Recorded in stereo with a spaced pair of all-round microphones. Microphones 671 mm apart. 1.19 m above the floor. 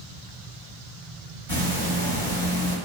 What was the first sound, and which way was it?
Ticking, 50° right (ahead or behind).